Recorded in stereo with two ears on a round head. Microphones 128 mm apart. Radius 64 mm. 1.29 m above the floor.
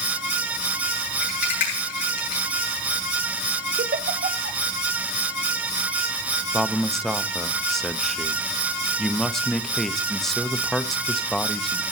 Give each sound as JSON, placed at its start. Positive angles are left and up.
{"t": 1.2, "sound": "a rattle", "side_deg": 60, "distance_m": 9.0}
{"t": 3.8, "sound": "a giggle", "side_deg": -55, "distance_m": 1.0}
{"t": 6.5, "sound": "a man speaking", "side_deg": 5, "distance_m": 0.7}